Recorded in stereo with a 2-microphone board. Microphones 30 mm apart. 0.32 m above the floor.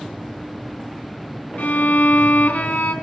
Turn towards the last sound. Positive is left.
turn(degrees=65)  # may be behind; listen again after turning